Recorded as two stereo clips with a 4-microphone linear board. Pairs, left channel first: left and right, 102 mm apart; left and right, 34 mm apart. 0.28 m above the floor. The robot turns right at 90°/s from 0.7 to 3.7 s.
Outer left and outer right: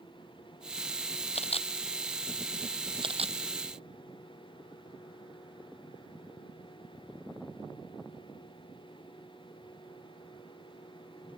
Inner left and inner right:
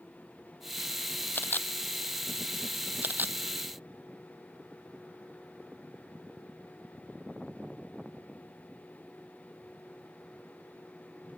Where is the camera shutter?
85° left; by 3.4 s 85° right.